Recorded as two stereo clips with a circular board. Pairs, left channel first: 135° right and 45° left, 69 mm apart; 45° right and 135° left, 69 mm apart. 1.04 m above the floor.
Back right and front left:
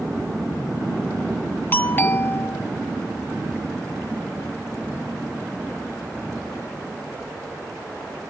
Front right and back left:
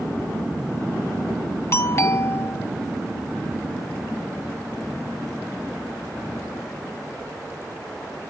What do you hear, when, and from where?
1.7 s a doorbell: 85° right